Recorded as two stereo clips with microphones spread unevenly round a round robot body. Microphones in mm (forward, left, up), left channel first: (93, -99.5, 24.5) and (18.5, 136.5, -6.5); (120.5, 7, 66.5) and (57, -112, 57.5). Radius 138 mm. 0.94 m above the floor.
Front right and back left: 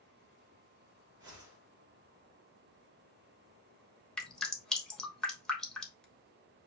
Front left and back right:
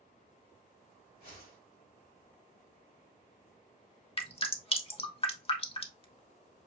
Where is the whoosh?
70° left, 3 m.